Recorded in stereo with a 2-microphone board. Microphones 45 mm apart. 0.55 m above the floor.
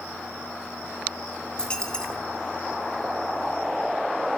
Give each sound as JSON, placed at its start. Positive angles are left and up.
{"t": 1.6, "sound": "a dropped coin", "side_deg": 20, "distance_m": 2.5}